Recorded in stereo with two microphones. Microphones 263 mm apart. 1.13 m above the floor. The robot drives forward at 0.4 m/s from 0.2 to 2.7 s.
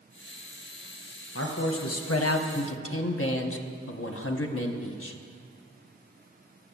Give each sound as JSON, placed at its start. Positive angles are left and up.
{"t": 1.4, "sound": "a man speaking", "side_deg": 55, "distance_m": 0.6}